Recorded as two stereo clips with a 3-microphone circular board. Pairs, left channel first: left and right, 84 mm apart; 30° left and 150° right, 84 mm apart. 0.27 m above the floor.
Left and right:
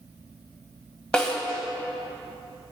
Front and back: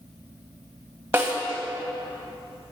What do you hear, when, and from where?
1.1 s a snare drum: 170° left, 1.9 m